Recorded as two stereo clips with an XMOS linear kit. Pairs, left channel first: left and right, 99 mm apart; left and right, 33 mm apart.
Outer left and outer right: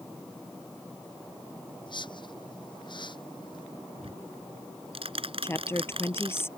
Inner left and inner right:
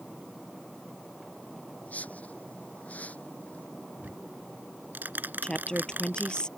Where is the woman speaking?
25° left (ahead or behind).